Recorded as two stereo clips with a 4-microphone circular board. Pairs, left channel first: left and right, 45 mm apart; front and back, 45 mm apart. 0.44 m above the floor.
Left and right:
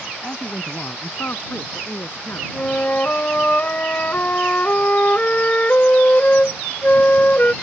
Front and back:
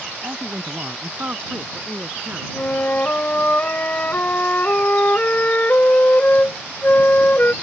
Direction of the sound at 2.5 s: 40° left.